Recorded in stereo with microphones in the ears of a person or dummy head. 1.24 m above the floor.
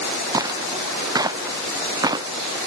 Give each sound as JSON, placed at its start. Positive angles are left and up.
{"t": 0.3, "sound": "footsteps", "side_deg": -20}